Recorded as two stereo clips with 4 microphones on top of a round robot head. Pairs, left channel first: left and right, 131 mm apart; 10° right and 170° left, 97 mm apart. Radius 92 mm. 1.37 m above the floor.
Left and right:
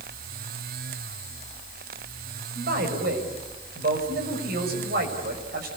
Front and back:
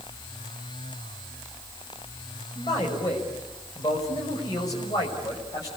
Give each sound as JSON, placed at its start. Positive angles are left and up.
{"t": 2.5, "sound": "a man speaking", "azimuth_deg": -70, "distance_m": 6.5}